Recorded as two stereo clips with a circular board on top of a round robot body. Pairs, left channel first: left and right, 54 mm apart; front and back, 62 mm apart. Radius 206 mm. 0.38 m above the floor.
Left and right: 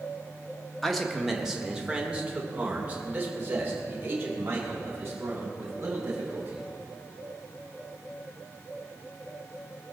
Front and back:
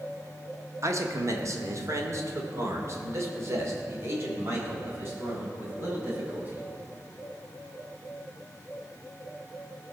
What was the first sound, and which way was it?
A man speaking, 175° left.